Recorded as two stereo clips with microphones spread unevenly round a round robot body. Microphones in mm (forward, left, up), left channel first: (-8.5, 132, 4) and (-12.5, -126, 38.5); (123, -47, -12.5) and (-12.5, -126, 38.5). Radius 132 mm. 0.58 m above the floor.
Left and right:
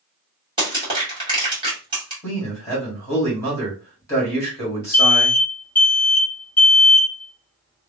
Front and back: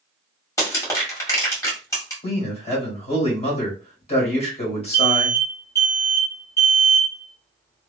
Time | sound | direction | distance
0.6 | crushing | 15° right | 1.9 m
2.2 | a man speaking | 15° left | 2 m
4.9 | an alarm | 20° left | 1.2 m